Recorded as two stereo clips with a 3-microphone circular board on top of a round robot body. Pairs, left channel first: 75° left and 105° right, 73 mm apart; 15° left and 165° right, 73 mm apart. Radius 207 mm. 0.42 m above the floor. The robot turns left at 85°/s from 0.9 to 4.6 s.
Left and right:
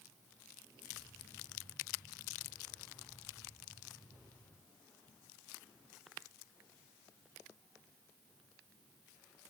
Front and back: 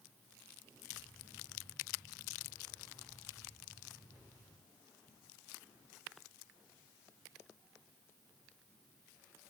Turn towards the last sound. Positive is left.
No sound to turn to.